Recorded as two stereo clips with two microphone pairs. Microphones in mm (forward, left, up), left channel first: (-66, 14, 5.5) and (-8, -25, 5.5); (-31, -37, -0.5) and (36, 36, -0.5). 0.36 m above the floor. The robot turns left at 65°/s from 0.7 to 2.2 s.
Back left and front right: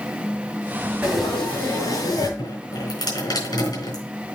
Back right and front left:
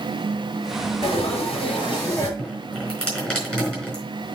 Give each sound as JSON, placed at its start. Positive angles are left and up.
{"t": 1.0, "sound": "frying", "azimuth_deg": -115, "distance_m": 5.5}
{"t": 2.4, "sound": "dripping", "azimuth_deg": 145, "distance_m": 4.5}